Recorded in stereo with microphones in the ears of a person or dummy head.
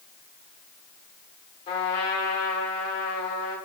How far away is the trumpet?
About 1.2 m.